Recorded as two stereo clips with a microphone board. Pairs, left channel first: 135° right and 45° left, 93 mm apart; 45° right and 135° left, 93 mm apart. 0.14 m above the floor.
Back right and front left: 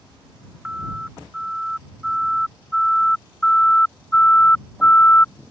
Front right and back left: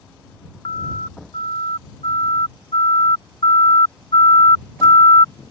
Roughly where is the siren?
Ahead right.